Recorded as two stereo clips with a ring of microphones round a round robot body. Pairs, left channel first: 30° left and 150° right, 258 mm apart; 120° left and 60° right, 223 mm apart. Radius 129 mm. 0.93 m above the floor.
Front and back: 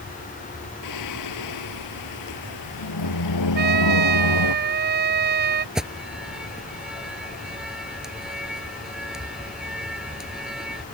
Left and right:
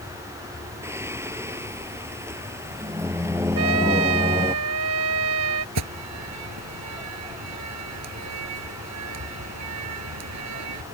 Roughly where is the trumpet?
Right.